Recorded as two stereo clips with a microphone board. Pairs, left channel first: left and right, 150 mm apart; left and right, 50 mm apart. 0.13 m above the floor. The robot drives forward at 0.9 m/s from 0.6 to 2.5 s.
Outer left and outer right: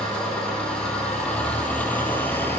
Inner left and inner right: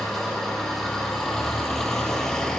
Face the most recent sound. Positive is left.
turn(degrees=15)  # may be behind; listen again after turning